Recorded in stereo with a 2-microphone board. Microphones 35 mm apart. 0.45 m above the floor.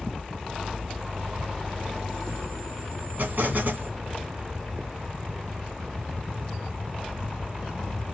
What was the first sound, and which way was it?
An explosion, 60° right (ahead or behind).